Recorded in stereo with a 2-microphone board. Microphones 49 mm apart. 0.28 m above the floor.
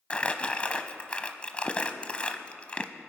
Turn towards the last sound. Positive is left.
turn(degrees=25)  # may be behind; listen again after turning